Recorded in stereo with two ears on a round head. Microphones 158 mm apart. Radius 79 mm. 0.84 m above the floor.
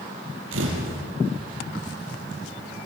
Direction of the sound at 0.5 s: 80° right.